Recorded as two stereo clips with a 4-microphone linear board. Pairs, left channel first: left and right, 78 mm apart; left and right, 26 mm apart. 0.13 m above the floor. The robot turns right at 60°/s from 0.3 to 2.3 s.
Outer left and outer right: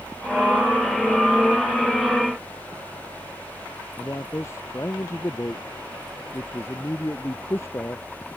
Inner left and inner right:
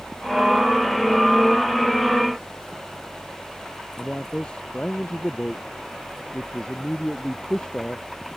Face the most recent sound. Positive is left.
turn(degrees=35)  # may be behind; listen again after turning